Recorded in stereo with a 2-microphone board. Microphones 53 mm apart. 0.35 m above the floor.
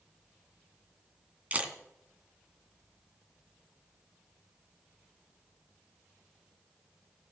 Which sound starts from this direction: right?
A camera shutter, at 1.5 s.